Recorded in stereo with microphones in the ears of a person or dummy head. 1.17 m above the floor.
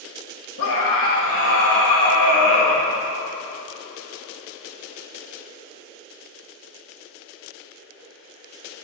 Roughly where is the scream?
Left.